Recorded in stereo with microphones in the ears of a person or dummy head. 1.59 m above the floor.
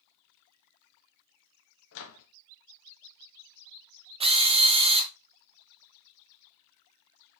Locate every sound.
1.9 s a microwave: 70° left (ahead or behind), 1.5 m
4.2 s a drill: 25° right (ahead or behind), 0.7 m